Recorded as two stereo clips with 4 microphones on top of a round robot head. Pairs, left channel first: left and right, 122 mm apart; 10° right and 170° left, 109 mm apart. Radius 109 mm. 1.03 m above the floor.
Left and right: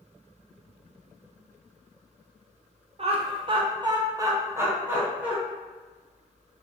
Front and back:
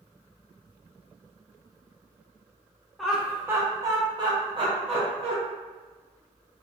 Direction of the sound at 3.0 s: 100° right.